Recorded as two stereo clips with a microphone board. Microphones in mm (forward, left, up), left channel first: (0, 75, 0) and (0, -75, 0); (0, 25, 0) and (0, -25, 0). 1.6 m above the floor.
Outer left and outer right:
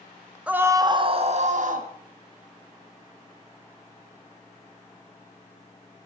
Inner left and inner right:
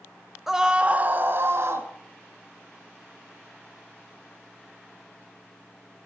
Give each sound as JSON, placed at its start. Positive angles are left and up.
{"t": 0.5, "sound": "a scream", "side_deg": -10, "distance_m": 1.6}